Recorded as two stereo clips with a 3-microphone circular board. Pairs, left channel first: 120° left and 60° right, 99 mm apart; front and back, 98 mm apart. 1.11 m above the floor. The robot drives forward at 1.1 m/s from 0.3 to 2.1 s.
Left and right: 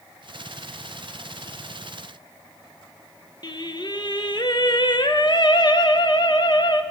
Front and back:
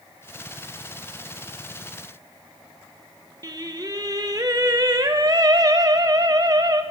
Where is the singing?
145° left, 0.9 m.